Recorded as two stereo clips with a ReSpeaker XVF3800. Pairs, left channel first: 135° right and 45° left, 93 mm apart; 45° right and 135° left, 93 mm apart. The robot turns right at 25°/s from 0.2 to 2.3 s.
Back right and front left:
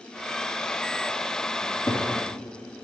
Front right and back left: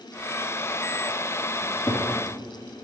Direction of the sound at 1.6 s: 100° right.